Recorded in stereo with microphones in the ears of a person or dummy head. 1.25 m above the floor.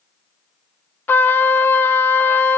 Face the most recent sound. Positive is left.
turn(degrees=10)  # may be behind; listen again after turning